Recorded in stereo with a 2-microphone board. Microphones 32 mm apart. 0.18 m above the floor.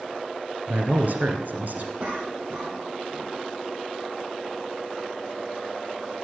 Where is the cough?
55° right (ahead or behind), 6.5 m.